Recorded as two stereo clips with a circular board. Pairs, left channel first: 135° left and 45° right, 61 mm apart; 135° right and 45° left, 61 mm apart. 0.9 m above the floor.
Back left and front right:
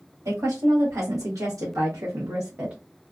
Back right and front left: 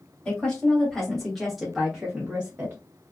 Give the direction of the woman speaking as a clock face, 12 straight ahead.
2 o'clock.